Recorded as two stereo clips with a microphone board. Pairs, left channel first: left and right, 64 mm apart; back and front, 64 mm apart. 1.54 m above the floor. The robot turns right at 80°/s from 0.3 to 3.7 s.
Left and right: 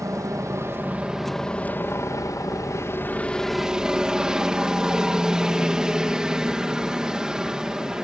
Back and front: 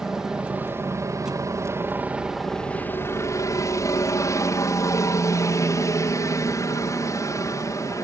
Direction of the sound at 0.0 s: 80° right.